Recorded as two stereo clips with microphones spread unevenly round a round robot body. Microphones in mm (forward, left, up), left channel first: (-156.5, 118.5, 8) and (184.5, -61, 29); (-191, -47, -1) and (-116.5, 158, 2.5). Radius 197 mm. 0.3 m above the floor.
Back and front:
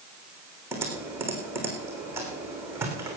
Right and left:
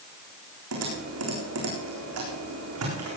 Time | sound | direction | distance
0.7 | typing on a keyboard | 55° left | 4 m